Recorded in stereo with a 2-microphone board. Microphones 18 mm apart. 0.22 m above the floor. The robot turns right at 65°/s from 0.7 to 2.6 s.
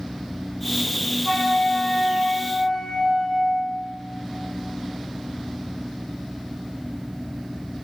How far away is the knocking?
No knocking in this recording.